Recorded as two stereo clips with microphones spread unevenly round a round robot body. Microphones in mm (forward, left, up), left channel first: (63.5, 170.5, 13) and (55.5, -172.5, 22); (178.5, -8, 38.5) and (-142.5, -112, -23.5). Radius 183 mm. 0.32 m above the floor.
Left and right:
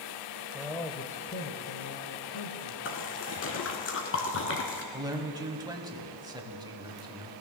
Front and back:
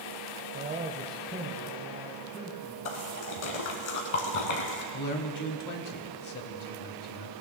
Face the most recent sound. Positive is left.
turn(degrees=-15)